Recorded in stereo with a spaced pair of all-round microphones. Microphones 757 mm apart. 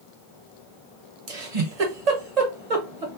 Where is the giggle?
55° right (ahead or behind), 1.2 m.